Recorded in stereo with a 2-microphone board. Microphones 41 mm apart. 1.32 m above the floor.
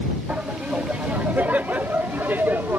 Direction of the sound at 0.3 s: 35° right (ahead or behind).